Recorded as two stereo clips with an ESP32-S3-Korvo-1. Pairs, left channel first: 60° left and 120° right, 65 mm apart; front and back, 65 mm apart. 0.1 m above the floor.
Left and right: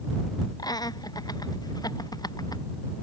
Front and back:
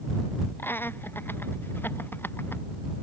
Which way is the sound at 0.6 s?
55° left.